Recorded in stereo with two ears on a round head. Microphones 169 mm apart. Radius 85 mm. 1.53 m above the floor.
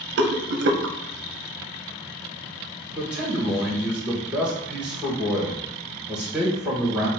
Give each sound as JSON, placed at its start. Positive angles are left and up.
{"t": 0.2, "sound": "a rattle", "side_deg": -60, "distance_m": 0.6}
{"t": 2.9, "sound": "a man speaking", "side_deg": -5, "distance_m": 1.4}